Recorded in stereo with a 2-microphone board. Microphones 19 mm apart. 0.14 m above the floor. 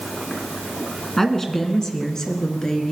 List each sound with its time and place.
1.2 s a woman speaking: 20° left (ahead or behind), 1.7 m; by 2.9 s 40° left (ahead or behind), 2.5 m